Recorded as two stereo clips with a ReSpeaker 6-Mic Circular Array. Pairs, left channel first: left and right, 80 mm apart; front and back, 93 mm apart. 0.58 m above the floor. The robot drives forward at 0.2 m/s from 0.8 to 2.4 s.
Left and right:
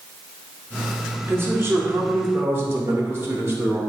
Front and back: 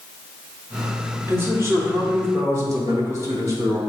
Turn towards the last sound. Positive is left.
turn(degrees=-140)